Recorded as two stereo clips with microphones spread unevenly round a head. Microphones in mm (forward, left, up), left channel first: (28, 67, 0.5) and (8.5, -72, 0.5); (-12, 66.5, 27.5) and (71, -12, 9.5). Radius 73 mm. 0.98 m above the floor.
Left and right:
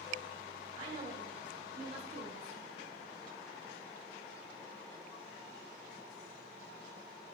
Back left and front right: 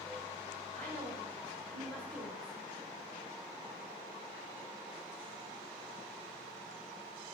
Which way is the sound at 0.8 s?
145° right.